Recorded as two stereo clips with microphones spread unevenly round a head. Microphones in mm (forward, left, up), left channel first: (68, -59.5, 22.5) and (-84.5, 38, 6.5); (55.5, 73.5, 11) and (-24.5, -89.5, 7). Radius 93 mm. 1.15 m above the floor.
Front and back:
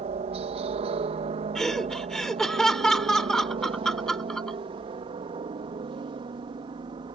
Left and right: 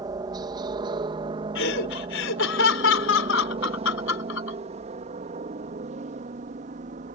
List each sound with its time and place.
0.0 s a helicopter: 175° right; by 7.1 s 155° right
1.6 s laughter: 55° left